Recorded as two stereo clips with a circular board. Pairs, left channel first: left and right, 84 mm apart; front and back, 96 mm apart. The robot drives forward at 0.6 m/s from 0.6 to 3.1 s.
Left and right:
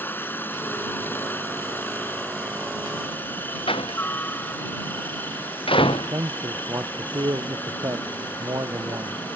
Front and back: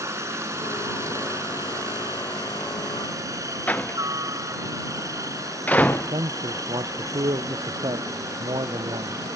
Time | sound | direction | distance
0.0 | a helicopter | 140° left | ?
3.7 | a door slam | 75° left | ?
5.9 | a man speaking | 140° right | ?